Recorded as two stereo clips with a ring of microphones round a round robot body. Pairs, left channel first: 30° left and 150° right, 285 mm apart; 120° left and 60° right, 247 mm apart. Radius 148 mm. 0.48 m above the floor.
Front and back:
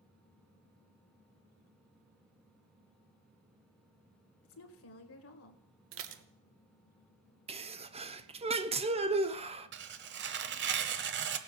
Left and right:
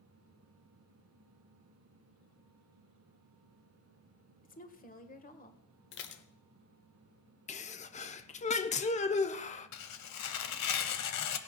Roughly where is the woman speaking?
Ahead left.